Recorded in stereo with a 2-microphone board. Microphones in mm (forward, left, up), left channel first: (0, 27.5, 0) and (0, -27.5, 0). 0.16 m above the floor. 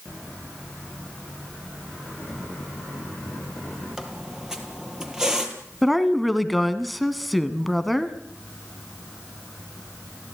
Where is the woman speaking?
Centre (ahead or behind), 1.4 m.